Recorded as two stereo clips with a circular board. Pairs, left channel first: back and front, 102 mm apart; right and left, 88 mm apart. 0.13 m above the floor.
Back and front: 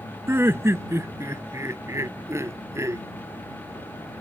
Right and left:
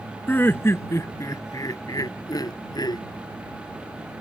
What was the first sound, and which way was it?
Laughter, 45° right.